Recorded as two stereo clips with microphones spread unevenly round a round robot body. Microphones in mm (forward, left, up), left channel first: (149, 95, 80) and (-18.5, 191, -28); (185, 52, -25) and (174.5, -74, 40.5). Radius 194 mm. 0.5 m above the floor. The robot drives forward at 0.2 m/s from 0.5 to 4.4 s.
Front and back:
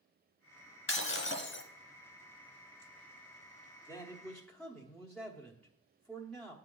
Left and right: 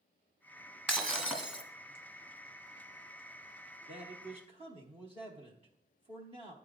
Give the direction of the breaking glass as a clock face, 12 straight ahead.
12 o'clock.